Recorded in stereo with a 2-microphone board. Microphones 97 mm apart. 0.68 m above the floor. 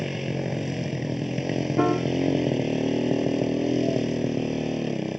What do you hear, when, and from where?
0.0 s a motorcycle: 5° right (ahead or behind)
1.8 s a piano: 10° right (ahead or behind)